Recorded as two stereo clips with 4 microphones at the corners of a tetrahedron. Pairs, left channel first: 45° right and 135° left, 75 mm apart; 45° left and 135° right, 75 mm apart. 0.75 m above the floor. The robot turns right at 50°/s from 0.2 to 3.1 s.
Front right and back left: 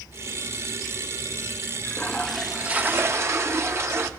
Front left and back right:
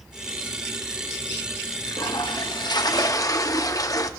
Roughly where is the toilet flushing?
Ahead.